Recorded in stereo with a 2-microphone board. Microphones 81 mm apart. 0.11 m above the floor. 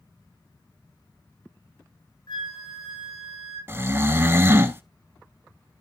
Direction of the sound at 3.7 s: 30° right (ahead or behind).